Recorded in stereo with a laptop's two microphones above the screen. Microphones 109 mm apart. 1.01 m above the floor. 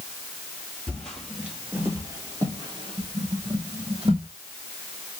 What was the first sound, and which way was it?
Footsteps, 10° left (ahead or behind).